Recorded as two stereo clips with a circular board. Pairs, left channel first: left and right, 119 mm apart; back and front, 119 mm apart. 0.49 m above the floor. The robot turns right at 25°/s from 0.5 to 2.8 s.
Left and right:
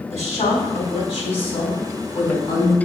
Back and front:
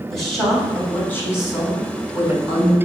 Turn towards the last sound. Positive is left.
turn(degrees=150)